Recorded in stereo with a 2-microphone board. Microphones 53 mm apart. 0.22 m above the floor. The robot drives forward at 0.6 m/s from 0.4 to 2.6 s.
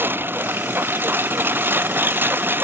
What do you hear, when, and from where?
0.0 s a lawn mower: 40° right (ahead or behind)